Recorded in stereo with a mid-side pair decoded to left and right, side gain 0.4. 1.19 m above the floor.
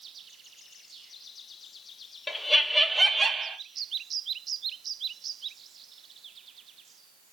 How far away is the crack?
I don't hear a crack.